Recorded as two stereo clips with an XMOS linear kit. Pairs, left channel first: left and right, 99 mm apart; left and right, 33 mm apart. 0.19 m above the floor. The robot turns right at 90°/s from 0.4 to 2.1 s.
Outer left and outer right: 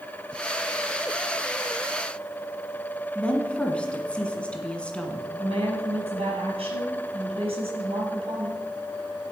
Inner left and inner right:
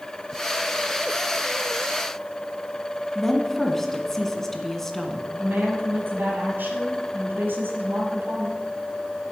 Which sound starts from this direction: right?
A woman speaking, at 5.4 s.